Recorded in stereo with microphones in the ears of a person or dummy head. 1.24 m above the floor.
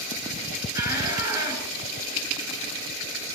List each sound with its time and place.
0.8 s a shout: 20° right (ahead or behind), 6.5 m